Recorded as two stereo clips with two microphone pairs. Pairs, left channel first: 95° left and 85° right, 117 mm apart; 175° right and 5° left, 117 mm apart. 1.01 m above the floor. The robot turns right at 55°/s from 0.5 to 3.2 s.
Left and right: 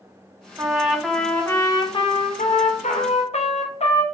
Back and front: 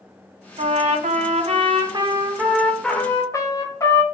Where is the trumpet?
25° right, 0.7 m; by 4.0 s 120° left, 0.7 m.